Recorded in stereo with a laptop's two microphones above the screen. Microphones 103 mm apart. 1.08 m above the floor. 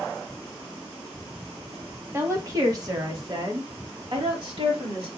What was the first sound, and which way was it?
A woman speaking, 25° right (ahead or behind).